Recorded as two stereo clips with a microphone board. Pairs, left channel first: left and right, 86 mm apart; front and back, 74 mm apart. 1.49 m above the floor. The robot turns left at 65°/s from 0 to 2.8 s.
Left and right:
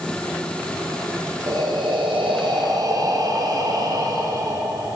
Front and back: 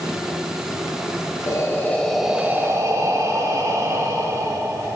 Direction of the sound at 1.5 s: 45° right.